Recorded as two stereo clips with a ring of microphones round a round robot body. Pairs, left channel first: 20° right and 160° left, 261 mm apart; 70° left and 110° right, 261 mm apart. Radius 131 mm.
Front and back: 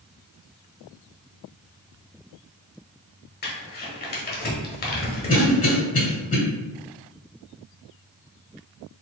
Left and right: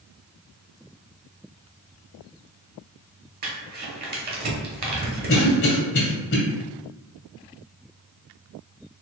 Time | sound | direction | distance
3.4 | crumpling | 65° right | 1.0 m
5.3 | a cough | 30° left | 1.6 m